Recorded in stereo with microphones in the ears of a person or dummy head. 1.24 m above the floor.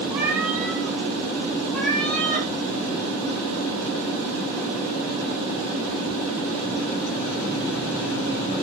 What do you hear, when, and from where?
0.1 s a cat meowing: 5° right (ahead or behind), 5.5 m; by 2.5 s 10° left (ahead or behind), 6.5 m